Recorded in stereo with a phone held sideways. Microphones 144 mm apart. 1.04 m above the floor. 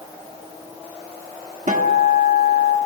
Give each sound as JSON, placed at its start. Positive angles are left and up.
{"t": 1.7, "sound": "a guitar", "side_deg": -55, "distance_m": 0.9}